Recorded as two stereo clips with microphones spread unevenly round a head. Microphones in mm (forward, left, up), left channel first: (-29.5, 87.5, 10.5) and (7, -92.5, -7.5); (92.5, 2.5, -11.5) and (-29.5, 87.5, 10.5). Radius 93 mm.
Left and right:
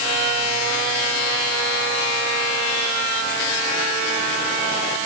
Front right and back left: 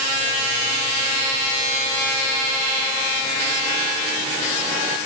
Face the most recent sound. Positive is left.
No sound to turn to.